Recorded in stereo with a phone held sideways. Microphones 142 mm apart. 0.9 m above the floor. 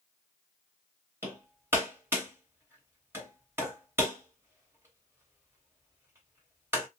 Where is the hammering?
15° right (ahead or behind), 1.5 m.